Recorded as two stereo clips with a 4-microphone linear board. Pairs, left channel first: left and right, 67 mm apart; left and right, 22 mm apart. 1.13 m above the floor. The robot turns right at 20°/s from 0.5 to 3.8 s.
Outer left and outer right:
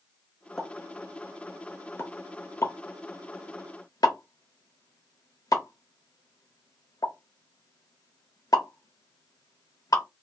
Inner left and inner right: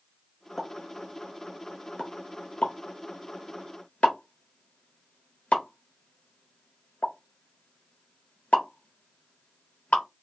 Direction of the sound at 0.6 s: 5° left (ahead or behind).